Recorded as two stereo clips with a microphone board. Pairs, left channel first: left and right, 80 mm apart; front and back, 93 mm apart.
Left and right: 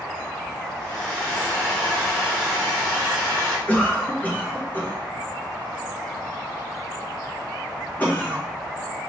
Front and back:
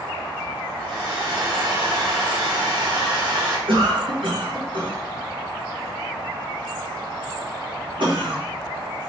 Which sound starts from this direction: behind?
A hair dryer, at 0.8 s.